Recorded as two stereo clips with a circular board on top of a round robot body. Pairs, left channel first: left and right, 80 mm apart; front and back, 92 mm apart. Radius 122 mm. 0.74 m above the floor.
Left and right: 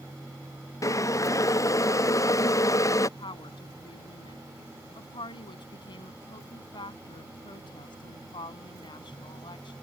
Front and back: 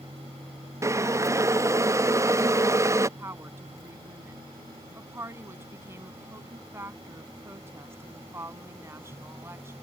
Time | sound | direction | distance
0.8 | boiling | 130° left | ?
3.2 | a woman speaking | 115° left | ?